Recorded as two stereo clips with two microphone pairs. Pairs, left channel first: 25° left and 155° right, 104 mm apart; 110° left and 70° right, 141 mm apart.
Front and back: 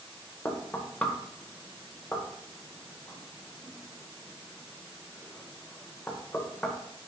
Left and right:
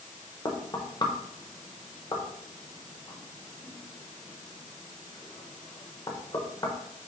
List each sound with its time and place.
0.5 s knocking: 80° left, 0.7 m